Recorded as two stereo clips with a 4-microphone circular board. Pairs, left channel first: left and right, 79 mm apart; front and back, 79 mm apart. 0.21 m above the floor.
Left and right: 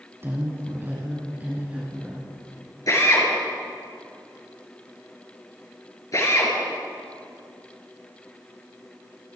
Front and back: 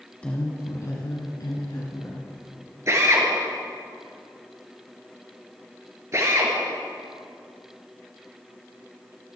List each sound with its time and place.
0.2 s a woman speaking: 65° right, 1.5 m; by 2.3 s 20° right, 4 m
2.9 s a drill: 130° left, 4 m